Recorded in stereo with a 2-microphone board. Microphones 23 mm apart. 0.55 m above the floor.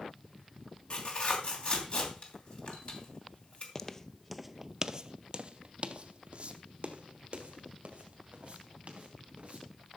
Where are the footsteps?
20° left (ahead or behind), 0.6 m; by 9.7 s 55° right (ahead or behind), 3 m.